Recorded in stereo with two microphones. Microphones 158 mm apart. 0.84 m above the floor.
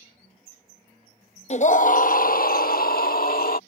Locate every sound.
1.5 s a scream: 45° left (ahead or behind); by 3.6 s 70° left (ahead or behind)